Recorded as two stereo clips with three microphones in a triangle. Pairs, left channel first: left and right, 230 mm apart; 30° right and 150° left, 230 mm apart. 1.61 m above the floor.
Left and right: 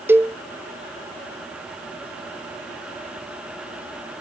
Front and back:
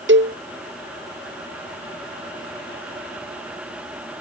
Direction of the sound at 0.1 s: 170° right.